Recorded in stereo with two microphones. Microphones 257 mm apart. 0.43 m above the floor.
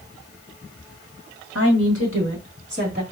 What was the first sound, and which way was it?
A woman speaking, 65° right (ahead or behind).